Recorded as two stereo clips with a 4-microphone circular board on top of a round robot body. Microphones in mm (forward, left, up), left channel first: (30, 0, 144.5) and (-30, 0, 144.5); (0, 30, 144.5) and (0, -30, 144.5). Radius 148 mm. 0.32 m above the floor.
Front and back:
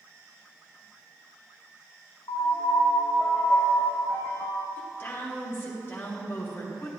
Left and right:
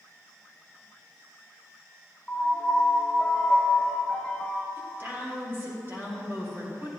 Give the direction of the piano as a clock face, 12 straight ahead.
12 o'clock.